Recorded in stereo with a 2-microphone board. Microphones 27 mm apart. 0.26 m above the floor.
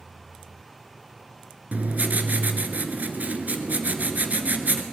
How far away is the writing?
About 1.1 m.